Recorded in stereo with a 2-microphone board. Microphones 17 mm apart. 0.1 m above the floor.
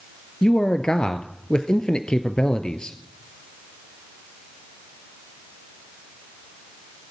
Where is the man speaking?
50° left (ahead or behind), 1.6 m.